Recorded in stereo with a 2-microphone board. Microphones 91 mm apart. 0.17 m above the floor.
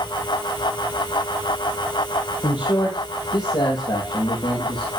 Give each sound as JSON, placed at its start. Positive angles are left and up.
{"t": 2.4, "sound": "a man speaking", "side_deg": 70, "distance_m": 4.0}